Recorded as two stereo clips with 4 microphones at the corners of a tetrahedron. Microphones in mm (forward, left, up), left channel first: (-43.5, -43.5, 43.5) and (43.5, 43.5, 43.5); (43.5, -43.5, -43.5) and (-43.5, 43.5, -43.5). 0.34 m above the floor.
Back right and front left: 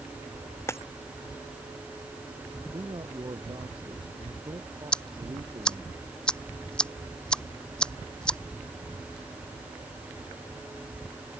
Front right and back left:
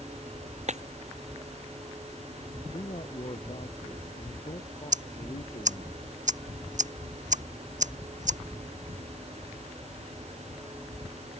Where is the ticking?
145° left.